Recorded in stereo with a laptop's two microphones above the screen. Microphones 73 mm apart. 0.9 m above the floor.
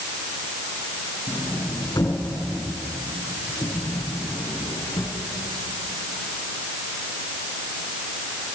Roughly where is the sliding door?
Left.